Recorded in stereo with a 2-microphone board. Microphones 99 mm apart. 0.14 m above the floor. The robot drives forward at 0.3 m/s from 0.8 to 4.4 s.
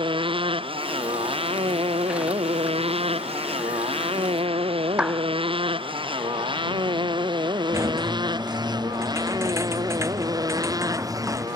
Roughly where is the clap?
Centre.